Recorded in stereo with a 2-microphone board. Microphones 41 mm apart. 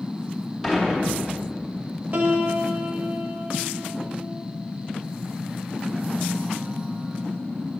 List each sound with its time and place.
0.6 s dishes clattering: 10° right (ahead or behind), 2.5 m
2.1 s a piano: 40° right (ahead or behind), 0.9 m